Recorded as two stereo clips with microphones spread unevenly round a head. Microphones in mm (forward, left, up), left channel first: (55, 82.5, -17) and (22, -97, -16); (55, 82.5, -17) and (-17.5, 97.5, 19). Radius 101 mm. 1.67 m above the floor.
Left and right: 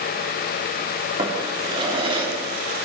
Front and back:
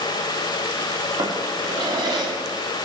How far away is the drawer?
About 3 m.